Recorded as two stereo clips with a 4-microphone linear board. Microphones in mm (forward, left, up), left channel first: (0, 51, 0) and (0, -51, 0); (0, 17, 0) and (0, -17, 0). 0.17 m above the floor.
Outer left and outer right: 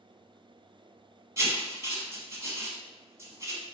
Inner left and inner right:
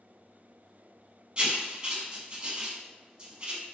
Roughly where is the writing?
Right.